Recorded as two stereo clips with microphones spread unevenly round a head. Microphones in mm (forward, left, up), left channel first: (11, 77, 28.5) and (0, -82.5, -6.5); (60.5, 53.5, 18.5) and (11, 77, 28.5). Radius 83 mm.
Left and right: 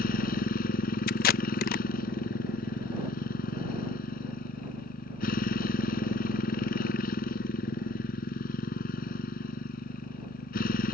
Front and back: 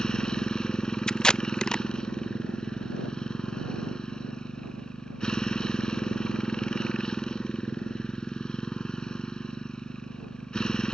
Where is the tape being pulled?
55° left.